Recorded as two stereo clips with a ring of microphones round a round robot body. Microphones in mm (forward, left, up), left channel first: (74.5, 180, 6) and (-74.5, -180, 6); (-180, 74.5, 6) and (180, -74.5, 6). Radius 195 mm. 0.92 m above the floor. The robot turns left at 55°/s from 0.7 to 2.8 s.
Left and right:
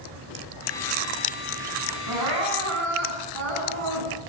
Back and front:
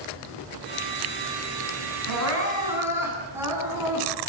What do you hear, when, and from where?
2.1 s crying: 65° right, 9.5 m; by 4.1 s 105° right, 9.5 m